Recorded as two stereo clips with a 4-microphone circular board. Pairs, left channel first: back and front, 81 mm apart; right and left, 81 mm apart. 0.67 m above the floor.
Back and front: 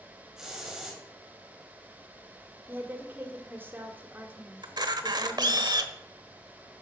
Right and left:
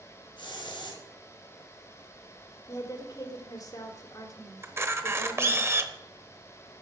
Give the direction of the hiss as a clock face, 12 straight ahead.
3 o'clock.